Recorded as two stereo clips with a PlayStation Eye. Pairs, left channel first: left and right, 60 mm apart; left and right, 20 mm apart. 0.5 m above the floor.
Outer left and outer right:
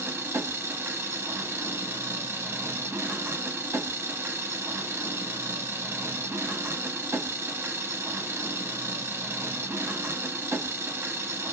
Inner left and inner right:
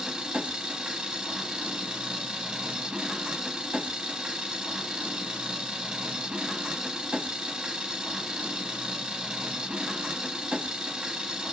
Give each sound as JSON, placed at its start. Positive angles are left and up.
{"t": 0.0, "sound": "an engine running", "side_deg": -45, "distance_m": 0.8}